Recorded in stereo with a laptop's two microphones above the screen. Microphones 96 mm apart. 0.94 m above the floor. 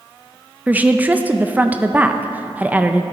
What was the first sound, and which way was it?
A woman speaking, 15° right (ahead or behind).